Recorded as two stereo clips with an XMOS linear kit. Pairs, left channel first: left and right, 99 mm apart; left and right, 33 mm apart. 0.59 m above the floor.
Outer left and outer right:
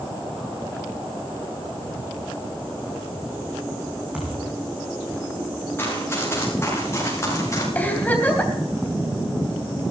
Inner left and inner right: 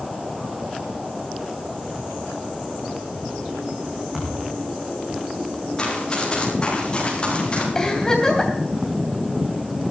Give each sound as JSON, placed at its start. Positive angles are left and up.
{"t": 4.1, "sound": "a thud", "side_deg": -15, "distance_m": 5.5}
{"t": 5.8, "sound": "running footsteps", "side_deg": 25, "distance_m": 8.0}
{"t": 7.8, "sound": "a giggle", "side_deg": 20, "distance_m": 3.0}